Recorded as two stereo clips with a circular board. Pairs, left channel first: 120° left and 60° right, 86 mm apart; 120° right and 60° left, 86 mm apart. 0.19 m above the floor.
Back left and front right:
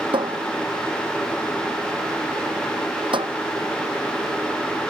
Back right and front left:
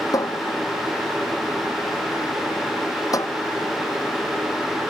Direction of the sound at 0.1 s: 75° right.